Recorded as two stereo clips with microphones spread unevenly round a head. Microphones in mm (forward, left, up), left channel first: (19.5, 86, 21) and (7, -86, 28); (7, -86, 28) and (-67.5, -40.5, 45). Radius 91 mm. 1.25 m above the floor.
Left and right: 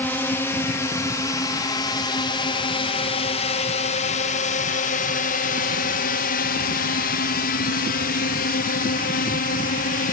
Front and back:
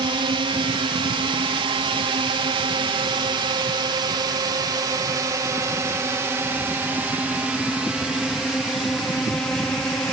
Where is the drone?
165° left; by 10.1 s 50° left.